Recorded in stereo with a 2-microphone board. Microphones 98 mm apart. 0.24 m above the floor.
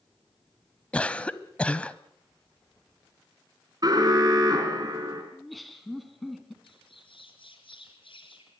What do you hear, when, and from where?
0.9 s a cough: 15° left (ahead or behind), 1.1 m
3.8 s an alarm: 45° right (ahead or behind), 4.5 m
5.3 s laughter: centre (ahead or behind), 3 m
6.6 s a bird: 70° left (ahead or behind), 4 m